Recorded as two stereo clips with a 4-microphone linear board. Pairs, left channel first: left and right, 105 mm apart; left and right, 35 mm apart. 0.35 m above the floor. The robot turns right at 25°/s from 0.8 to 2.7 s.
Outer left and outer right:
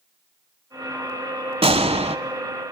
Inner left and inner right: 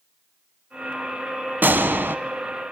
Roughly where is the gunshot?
Right.